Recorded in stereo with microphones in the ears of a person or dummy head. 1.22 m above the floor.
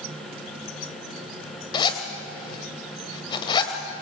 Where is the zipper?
20° left (ahead or behind), 2.5 m.